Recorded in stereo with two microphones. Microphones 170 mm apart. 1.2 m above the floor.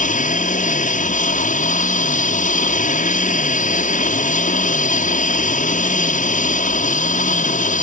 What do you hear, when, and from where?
0.0 s an aircraft: 50° left (ahead or behind)